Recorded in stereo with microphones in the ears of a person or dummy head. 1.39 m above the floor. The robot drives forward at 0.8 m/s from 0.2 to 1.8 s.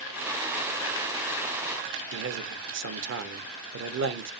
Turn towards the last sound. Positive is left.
turn(degrees=-65)  # may be behind; listen again after turning